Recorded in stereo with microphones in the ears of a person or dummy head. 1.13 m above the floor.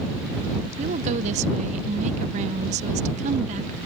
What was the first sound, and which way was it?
A woman speaking, 40° right (ahead or behind).